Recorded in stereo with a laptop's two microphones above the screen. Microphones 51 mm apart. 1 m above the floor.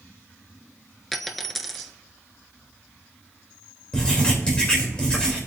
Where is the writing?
15° left (ahead or behind), 3 m.